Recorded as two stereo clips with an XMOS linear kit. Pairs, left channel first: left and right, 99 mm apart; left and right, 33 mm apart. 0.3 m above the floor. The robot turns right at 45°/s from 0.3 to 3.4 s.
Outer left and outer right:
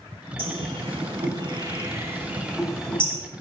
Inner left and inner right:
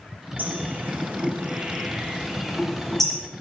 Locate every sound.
0.4 s a bird: 75° right (ahead or behind), 6 m; by 3.2 s 20° left (ahead or behind), 6 m